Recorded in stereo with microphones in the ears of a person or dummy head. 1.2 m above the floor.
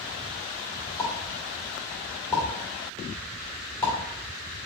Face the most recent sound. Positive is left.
turn(degrees=10)  # may be behind; listen again after turning